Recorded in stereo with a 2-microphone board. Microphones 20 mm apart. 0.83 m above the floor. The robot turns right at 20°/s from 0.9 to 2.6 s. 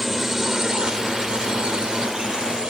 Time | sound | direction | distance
0.0 | a drone | 15° right (ahead or behind) | ?